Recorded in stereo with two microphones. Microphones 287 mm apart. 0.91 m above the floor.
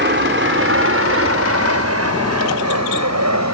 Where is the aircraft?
40° right (ahead or behind); by 3.5 s 65° right (ahead or behind).